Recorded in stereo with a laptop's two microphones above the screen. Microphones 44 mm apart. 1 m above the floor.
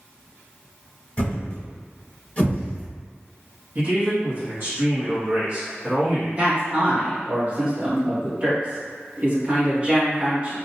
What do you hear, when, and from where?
1.2 s a thud: 30° left (ahead or behind), 1.8 m
3.8 s a man speaking: 45° right (ahead or behind), 1.2 m
6.4 s a man speaking: 30° right (ahead or behind), 1.3 m